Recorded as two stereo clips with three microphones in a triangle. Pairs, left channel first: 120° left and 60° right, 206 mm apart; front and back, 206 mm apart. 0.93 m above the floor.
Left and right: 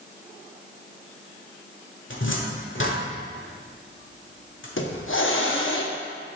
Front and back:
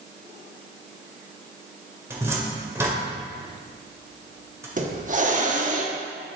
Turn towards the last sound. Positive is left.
turn(degrees=130)